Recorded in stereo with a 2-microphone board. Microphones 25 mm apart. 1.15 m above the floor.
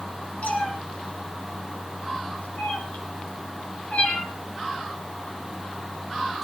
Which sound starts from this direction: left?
A cat meowing, at 0.4 s.